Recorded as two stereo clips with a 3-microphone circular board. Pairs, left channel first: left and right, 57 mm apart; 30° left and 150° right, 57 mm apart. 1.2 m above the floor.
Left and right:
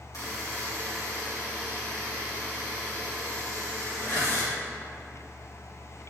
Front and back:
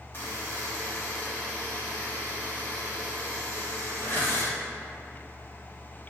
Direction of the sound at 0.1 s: 80° left.